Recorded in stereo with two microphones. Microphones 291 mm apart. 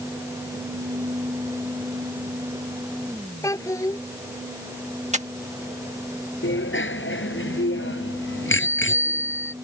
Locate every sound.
3.4 s a child speaking: 10° left (ahead or behind)
5.1 s breathing: 25° right (ahead or behind)
6.4 s a bicycle bell: 40° left (ahead or behind)